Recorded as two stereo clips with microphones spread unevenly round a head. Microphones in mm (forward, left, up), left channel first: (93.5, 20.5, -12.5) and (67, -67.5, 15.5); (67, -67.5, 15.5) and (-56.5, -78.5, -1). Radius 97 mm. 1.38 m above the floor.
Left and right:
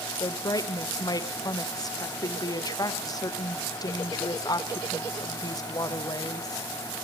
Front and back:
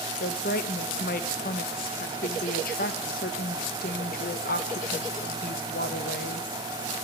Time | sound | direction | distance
0.2 | a woman speaking | 25° left | 1.5 m